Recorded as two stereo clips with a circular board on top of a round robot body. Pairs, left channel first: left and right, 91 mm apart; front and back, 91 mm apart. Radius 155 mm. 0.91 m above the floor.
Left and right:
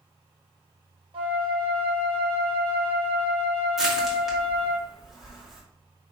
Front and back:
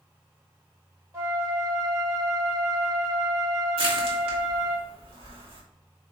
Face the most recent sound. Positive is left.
turn(degrees=-175)